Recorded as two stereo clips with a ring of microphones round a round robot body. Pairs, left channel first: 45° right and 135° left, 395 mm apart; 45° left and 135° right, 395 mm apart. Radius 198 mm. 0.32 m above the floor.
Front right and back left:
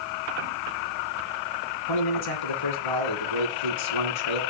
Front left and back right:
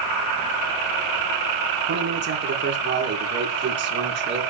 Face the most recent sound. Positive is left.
turn(degrees=-75)